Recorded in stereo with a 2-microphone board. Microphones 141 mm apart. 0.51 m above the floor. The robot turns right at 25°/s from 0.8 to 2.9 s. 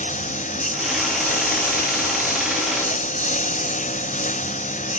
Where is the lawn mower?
65° left; by 5.0 s 115° left.